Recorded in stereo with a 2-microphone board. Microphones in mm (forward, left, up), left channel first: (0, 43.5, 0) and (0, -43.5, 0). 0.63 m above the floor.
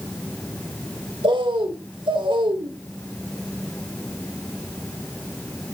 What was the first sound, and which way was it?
A bird, 70° right (ahead or behind).